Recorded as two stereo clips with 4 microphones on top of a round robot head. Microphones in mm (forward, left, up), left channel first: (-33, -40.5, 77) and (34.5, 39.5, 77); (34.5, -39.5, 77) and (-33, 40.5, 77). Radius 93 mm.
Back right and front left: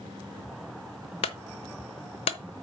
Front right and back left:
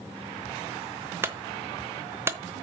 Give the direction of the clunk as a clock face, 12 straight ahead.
5 o'clock.